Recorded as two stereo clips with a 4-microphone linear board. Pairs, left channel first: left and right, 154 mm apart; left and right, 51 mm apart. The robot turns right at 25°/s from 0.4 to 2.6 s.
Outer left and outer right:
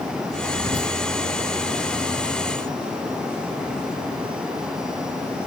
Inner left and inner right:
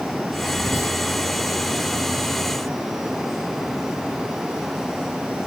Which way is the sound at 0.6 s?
70° left (ahead or behind).